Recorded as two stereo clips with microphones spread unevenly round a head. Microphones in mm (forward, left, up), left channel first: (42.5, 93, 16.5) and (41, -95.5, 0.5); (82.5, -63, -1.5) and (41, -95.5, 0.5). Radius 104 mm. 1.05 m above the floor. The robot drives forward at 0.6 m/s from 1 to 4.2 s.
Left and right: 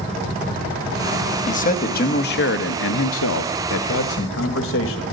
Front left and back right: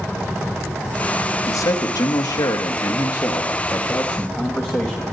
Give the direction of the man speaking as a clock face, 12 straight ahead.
11 o'clock.